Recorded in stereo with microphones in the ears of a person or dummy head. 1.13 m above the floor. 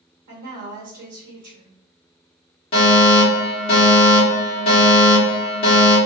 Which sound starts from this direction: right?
A woman speaking, at 0.3 s.